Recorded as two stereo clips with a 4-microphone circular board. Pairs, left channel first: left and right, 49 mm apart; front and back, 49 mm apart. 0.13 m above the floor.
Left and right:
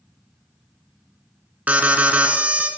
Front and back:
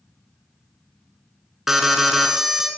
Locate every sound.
1.7 s an alarm: 105° right, 1.4 m